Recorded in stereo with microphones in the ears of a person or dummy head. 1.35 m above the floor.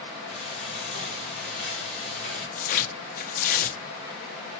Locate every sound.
0.3 s frying: 50° left (ahead or behind), 3.5 m
2.5 s tearing paper: 45° left (ahead or behind), 1.1 m